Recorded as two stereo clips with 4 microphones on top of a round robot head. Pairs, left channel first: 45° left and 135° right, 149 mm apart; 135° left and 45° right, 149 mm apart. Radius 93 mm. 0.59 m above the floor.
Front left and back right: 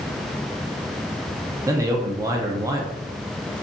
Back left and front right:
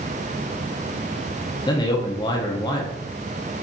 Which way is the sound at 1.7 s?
175° left.